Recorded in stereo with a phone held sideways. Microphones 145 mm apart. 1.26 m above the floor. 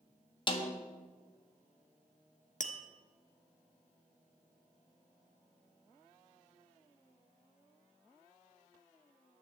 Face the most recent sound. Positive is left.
turn(degrees=60)  # may be behind; listen again after turning